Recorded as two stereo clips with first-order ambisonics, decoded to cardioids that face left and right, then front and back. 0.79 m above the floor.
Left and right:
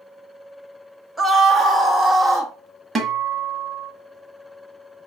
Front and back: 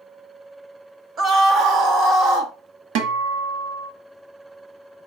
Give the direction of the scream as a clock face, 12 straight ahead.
6 o'clock.